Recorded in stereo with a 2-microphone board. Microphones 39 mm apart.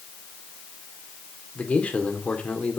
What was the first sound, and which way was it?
A man speaking, 35° left (ahead or behind).